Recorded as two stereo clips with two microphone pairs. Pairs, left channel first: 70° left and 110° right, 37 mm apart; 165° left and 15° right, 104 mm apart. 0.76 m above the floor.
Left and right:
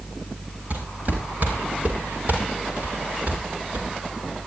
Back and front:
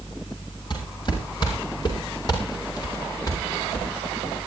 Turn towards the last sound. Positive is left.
turn(degrees=-140)